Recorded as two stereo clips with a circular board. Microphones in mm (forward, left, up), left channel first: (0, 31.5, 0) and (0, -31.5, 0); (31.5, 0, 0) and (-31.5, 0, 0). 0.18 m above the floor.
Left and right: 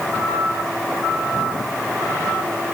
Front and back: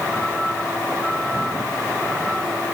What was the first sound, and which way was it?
Only background noise.